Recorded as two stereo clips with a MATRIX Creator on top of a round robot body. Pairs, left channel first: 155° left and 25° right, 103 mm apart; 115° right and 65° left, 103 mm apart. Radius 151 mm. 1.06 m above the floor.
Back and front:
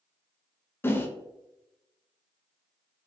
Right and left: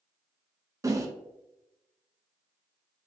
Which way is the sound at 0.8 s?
105° left.